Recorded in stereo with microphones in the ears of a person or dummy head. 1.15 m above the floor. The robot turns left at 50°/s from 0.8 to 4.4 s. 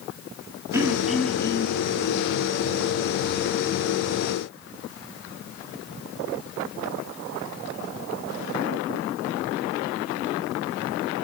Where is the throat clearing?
165° right, 1.7 m; by 1.8 s 145° left, 1.7 m.